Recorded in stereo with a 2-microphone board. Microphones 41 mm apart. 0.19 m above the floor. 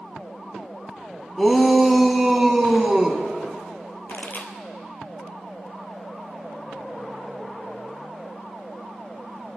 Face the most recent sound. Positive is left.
turn(degrees=60)  # may be behind; listen again after turning